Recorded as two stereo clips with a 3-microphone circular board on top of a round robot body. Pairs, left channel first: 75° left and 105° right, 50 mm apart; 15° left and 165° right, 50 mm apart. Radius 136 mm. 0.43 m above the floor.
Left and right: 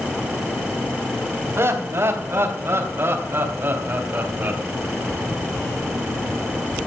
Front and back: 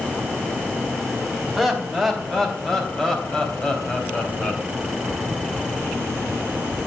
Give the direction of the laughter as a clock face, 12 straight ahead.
2 o'clock.